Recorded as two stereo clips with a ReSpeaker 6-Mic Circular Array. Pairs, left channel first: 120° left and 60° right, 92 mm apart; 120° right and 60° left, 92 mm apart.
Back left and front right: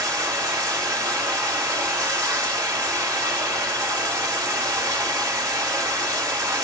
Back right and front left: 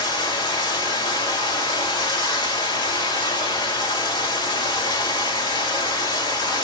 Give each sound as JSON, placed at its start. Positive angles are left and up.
{"t": 0.0, "sound": "running water", "azimuth_deg": -100, "distance_m": 1.5}